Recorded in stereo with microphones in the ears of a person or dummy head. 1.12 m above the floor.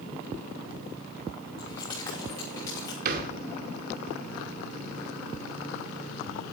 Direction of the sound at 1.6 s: 20° left (ahead or behind).